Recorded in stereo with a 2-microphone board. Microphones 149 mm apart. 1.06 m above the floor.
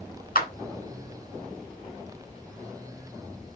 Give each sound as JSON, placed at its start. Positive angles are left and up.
{"t": 0.3, "sound": "a clap", "side_deg": 80, "distance_m": 4.0}